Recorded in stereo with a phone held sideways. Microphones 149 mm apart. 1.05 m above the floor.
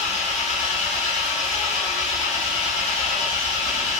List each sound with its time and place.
0.0 s an engine running: 50° left (ahead or behind), 1.9 m